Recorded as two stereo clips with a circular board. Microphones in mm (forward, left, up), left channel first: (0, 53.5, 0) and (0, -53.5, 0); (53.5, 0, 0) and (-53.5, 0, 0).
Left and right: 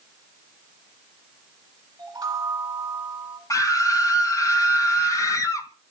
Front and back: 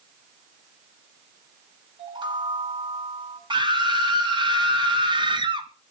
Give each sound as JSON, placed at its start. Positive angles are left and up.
{"t": 2.0, "sound": "a chime", "azimuth_deg": -140, "distance_m": 2.0}
{"t": 3.5, "sound": "a scream", "azimuth_deg": 145, "distance_m": 3.0}